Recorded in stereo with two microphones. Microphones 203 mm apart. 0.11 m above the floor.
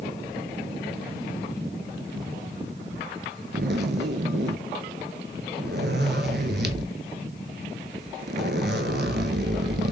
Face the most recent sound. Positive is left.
turn(degrees=-55)  # may be behind; listen again after turning